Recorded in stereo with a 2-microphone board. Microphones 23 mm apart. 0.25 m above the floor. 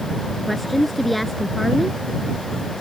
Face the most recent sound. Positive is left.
turn(degrees=0)  # may be behind; listen again after turning